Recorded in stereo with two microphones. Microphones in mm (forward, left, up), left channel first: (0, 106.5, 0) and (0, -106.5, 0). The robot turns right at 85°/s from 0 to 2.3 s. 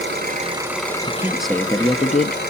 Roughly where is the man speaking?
Ahead right.